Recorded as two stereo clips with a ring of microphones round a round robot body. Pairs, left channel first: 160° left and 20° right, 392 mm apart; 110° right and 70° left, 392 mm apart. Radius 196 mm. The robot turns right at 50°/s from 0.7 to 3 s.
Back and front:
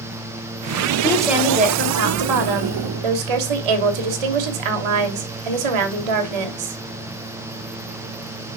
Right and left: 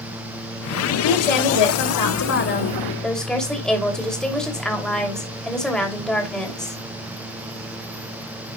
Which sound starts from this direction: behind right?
A woman speaking, at 1.0 s.